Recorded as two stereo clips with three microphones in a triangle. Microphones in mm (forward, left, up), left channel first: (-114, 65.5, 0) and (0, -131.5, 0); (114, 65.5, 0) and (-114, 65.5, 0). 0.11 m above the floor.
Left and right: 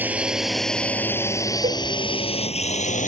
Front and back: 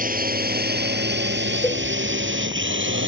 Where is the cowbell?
70° right.